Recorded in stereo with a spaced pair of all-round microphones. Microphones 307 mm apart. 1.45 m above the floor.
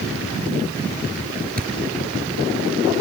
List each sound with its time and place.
1.6 s a thud: 30° right (ahead or behind)